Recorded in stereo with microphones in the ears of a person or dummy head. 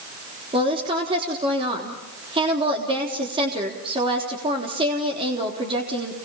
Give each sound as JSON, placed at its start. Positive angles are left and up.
{"t": 0.5, "sound": "a woman speaking", "side_deg": -25, "distance_m": 3.5}